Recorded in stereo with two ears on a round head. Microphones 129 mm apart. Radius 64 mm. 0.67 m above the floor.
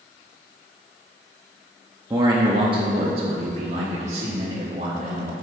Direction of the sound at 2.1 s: 25° right (ahead or behind).